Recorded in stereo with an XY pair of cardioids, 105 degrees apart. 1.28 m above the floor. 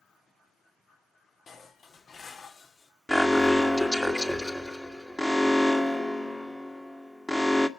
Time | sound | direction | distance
1.5 | dishes clattering | 50° left | 1.9 m
3.1 | an alarm | 10° left | 1.8 m